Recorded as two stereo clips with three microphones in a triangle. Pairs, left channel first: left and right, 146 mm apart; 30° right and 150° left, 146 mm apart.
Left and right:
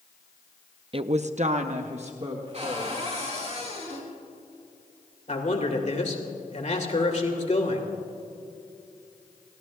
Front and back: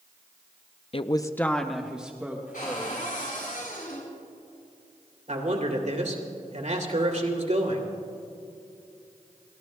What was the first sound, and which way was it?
A woman speaking, 55° right.